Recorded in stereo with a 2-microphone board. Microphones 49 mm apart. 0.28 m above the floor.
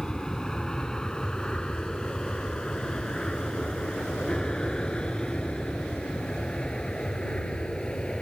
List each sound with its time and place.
0.0 s an aircraft: 15° left (ahead or behind); by 8.2 s 20° left (ahead or behind)